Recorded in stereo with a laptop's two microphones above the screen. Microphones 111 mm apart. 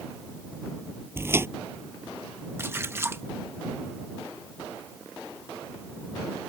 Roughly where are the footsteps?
Right.